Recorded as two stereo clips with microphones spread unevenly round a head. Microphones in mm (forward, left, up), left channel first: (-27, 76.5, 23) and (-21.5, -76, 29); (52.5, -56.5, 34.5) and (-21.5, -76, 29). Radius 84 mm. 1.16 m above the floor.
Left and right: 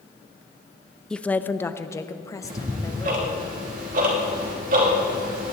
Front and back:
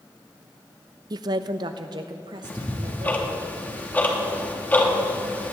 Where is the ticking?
50° right, 3 m.